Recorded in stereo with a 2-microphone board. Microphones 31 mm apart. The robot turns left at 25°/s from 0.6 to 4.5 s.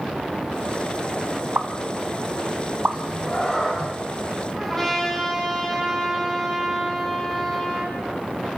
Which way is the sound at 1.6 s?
65° right (ahead or behind).